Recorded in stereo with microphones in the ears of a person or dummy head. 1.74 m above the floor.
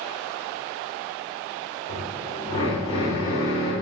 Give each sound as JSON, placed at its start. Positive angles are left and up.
{"t": 1.9, "sound": "a drill", "side_deg": 30, "distance_m": 3.5}